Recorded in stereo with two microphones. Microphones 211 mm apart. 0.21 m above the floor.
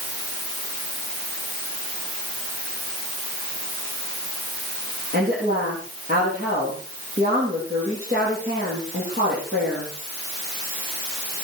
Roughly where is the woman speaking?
Right.